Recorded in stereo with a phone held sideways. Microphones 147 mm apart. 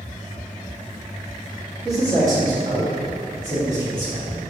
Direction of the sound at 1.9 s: 20° right (ahead or behind).